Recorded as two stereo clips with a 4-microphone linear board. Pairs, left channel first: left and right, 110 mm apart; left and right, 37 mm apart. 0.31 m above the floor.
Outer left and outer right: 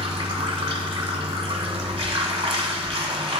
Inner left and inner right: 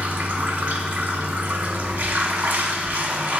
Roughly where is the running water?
Right.